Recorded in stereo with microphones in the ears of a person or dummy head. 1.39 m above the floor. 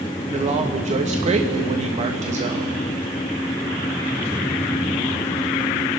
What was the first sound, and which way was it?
A man speaking, 35° right (ahead or behind).